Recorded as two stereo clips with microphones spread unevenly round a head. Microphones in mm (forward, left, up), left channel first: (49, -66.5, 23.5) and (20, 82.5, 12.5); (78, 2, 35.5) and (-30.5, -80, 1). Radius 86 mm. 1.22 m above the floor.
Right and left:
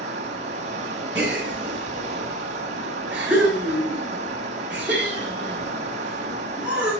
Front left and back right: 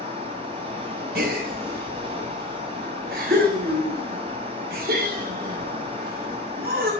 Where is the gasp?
175° right, 3.5 m.